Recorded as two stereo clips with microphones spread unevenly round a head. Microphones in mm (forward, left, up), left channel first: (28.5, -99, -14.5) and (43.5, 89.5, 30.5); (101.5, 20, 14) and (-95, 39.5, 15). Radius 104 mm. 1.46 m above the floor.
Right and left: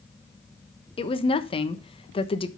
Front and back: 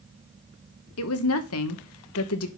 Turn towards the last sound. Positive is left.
turn(degrees=-30)